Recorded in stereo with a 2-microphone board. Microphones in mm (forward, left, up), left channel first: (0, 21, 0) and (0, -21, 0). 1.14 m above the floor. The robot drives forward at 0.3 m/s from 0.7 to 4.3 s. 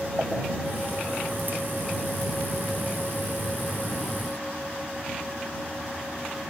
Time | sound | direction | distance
0.2 | a pop | 30° right (ahead or behind) | 7 m